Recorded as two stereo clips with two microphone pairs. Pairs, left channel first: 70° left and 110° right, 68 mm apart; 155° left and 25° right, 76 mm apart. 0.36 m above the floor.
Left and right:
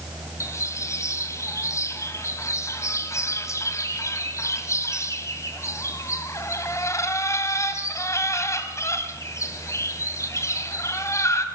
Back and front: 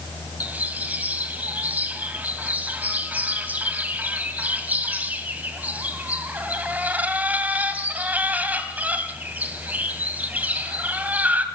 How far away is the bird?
About 2.5 m.